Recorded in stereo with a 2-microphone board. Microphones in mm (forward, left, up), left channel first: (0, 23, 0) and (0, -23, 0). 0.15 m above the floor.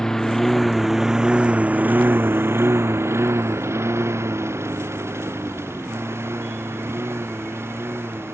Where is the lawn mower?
15° left (ahead or behind); by 8.4 s 65° right (ahead or behind).